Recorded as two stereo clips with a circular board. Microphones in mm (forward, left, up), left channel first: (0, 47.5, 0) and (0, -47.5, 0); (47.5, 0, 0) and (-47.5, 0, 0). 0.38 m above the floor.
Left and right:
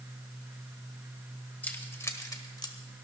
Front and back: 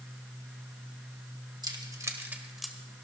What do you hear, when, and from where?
1.6 s keys jangling: 160° left, 1.6 m; by 2.8 s 80° left, 1.3 m